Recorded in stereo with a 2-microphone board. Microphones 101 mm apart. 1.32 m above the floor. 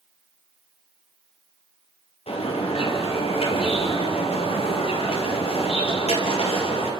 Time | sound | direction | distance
2.3 | a bird | 80° left | 5.5 m